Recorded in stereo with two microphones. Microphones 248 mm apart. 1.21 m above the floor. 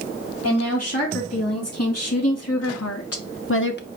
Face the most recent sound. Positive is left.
turn(degrees=40)  # may be behind; listen again after turning